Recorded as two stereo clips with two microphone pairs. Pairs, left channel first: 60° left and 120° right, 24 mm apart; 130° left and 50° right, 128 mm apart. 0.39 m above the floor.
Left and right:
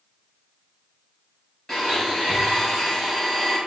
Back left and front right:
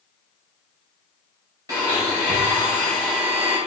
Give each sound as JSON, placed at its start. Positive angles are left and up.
{"t": 1.7, "sound": "a blender", "azimuth_deg": 0, "distance_m": 2.0}